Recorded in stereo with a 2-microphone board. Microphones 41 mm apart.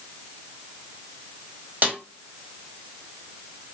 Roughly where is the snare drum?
Right.